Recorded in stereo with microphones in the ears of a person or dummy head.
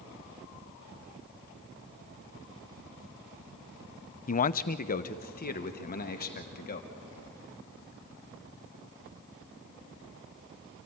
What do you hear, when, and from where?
4.3 s a man speaking: 40° left (ahead or behind), 0.6 m; by 6.9 s 50° left (ahead or behind), 2.5 m